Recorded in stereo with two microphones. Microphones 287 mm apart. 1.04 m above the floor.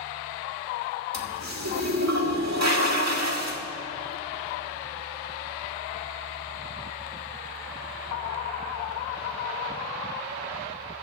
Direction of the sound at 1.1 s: 65° right (ahead or behind).